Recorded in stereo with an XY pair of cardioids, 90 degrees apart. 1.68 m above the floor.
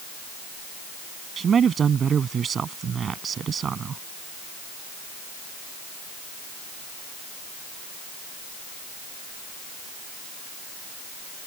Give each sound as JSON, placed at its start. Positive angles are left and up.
{"t": 1.4, "sound": "a man speaking", "azimuth_deg": -55}